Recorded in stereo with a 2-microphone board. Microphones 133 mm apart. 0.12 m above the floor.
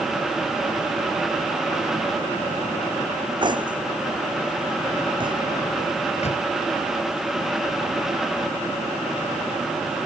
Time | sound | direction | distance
3.4 | cutlery clinking | 35° right (ahead or behind) | ?
6.2 | a microwave | 55° left (ahead or behind) | ?